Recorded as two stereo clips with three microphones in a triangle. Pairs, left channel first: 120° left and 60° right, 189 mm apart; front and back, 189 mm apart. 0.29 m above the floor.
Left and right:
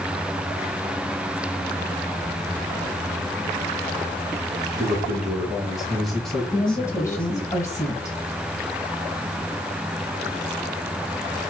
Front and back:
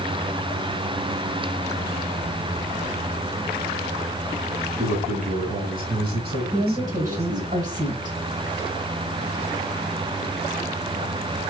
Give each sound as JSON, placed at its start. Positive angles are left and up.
{"t": 4.8, "sound": "a man speaking", "azimuth_deg": -135, "distance_m": 1.8}
{"t": 6.5, "sound": "a woman speaking", "azimuth_deg": -175, "distance_m": 1.5}